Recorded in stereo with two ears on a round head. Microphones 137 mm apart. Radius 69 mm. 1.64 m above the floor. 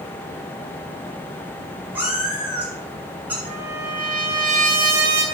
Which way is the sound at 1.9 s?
10° right (ahead or behind).